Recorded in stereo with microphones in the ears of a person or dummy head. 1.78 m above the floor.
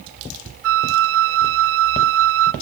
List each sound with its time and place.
0.6 s a flute: 70° right (ahead or behind), 0.6 m